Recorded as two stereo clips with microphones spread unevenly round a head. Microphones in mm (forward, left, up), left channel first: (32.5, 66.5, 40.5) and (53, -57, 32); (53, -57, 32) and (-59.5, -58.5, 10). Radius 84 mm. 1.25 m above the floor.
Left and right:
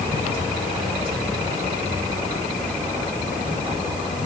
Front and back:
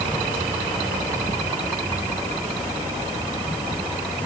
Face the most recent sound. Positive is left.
No sound to turn to.